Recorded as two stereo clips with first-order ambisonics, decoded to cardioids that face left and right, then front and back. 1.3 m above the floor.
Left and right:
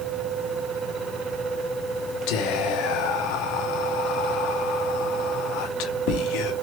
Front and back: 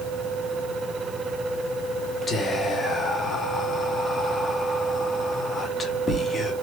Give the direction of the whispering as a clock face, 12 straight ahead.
10 o'clock.